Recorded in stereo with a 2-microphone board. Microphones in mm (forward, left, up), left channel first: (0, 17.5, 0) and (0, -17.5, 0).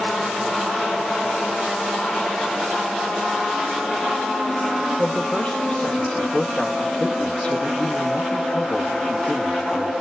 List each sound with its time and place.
5.0 s a man speaking: 45° left (ahead or behind), 0.8 m